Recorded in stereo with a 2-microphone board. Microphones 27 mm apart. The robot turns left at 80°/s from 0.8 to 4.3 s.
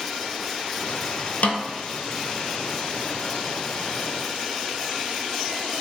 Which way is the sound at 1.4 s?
65° left (ahead or behind).